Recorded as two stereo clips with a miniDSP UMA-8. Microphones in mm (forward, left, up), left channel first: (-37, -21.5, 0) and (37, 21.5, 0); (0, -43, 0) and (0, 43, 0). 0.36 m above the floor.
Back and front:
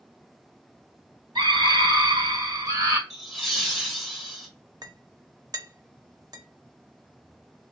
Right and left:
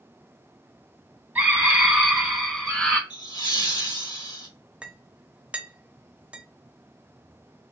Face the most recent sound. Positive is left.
turn(degrees=20)